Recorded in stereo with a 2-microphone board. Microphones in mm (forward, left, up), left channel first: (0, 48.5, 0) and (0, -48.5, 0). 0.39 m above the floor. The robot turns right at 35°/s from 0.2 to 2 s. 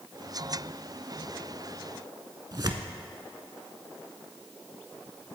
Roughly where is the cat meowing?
I don't hear a cat meowing.